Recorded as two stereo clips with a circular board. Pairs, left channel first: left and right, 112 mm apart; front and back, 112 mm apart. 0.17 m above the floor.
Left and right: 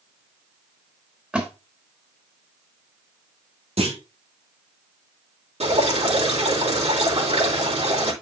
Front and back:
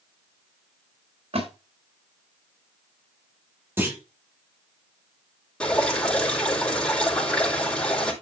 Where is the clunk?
110° right, 4 m.